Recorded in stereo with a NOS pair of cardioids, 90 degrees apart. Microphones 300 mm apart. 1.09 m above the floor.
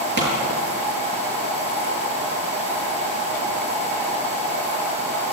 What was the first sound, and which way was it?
A pop, 35° right.